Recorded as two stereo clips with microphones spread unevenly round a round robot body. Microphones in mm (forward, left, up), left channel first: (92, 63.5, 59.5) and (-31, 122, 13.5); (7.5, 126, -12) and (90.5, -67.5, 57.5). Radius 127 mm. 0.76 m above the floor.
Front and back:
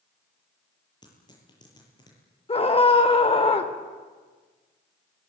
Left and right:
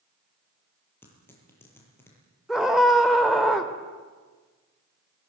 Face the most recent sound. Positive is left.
turn(degrees=25)